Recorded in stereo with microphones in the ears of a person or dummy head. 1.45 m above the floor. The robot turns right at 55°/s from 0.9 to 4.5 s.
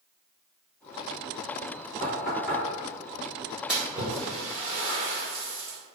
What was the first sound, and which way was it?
Knocking, 45° left (ahead or behind).